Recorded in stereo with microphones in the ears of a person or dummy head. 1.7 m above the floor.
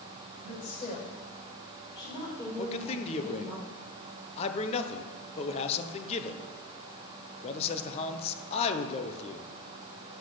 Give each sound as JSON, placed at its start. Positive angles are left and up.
{"t": 0.4, "sound": "a woman speaking", "side_deg": 40, "distance_m": 6.0}
{"t": 2.6, "sound": "a man speaking", "side_deg": 35, "distance_m": 1.2}